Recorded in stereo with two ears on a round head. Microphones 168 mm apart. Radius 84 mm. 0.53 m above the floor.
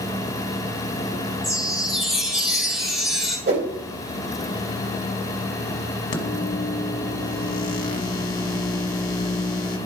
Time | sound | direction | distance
1.4 | a chime | centre (ahead or behind) | 3 m
3.5 | a whoosh | 60° right (ahead or behind) | 2 m
6.1 | a microwave | 45° left (ahead or behind) | 1.4 m